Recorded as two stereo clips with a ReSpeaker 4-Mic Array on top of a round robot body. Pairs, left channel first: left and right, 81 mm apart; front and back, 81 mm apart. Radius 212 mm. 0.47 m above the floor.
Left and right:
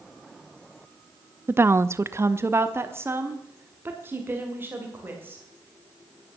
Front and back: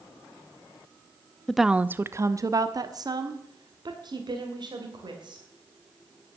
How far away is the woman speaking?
About 0.7 m.